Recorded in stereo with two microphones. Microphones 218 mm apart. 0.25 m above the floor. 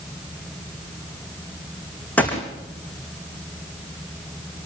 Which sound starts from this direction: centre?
A gunshot, at 2.2 s.